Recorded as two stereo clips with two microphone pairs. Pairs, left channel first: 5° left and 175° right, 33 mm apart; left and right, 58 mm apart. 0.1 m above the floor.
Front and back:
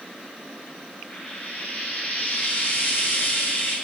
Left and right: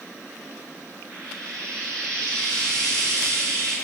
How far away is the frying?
About 2.5 m.